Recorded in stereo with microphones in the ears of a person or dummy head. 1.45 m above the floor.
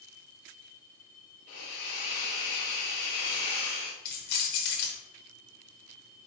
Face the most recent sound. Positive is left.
turn(degrees=55)  # may be behind; listen again after turning